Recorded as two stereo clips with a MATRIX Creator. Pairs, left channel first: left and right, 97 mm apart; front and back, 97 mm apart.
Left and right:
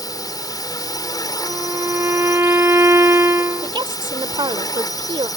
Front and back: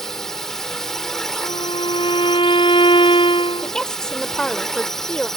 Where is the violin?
25° right.